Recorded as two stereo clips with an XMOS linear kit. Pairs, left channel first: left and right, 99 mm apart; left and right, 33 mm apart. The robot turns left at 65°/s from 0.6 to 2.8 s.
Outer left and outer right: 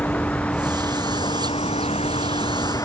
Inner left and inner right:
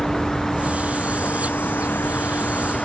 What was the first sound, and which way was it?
A vehicle, 15° left (ahead or behind).